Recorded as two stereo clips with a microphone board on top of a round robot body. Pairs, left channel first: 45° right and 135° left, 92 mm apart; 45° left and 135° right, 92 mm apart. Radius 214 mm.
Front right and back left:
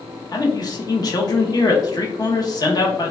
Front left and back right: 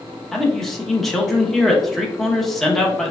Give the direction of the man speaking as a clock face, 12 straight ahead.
1 o'clock.